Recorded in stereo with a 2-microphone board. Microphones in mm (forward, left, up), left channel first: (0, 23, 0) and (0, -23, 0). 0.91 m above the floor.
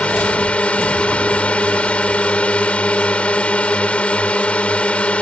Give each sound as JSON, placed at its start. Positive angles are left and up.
{"t": 0.0, "sound": "a drone", "side_deg": 30}